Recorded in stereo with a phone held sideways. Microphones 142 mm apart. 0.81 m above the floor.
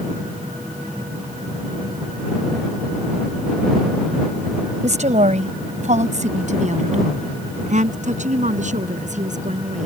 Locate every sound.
4.8 s a woman speaking: 55° right (ahead or behind); by 9.9 s 60° right (ahead or behind)